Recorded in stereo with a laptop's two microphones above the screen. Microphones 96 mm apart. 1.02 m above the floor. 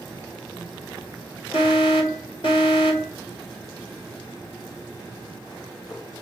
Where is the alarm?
60° left (ahead or behind), 4 m.